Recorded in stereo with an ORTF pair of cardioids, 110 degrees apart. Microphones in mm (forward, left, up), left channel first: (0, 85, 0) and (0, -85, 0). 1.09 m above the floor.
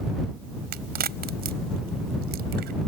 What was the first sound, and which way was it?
A crack, 70° right.